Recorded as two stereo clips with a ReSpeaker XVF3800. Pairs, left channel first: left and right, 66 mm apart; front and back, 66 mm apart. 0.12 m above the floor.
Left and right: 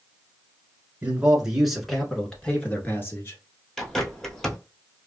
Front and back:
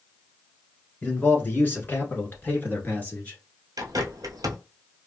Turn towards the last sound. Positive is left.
turn(degrees=175)